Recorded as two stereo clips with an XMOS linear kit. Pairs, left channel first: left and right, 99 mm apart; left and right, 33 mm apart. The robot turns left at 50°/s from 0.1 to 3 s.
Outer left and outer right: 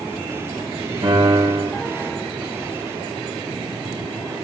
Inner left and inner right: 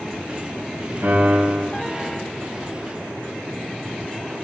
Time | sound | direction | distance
1.0 | a piano | 90° right | 6.5 m